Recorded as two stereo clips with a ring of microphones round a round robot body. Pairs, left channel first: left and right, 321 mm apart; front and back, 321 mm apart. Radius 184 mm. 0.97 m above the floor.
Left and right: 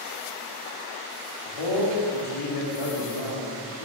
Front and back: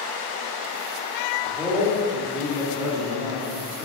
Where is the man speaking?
90° left, 2 m.